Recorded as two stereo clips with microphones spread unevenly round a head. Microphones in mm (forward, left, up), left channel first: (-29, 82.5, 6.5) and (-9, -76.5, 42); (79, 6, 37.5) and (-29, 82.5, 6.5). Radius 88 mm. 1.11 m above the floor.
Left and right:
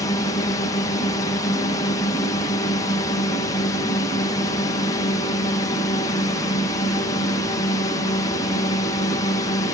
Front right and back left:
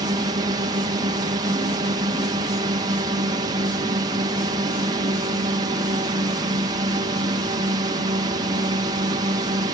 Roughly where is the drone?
Behind left.